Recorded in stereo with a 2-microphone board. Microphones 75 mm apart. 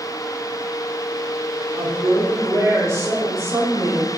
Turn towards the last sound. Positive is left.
turn(degrees=-40)  # may be behind; listen again after turning